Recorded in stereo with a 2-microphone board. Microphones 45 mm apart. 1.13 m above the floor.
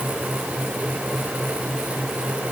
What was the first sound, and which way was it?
Only background noise.